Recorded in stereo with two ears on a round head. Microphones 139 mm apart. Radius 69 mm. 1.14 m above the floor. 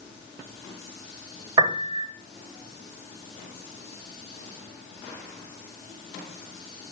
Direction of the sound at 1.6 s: 35° right (ahead or behind).